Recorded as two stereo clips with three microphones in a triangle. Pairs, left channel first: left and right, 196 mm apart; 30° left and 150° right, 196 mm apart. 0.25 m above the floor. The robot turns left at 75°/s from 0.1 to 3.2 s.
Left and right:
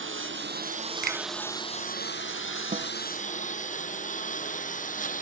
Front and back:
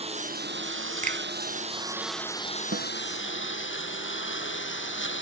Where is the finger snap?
110° right; by 1.2 s 120° right.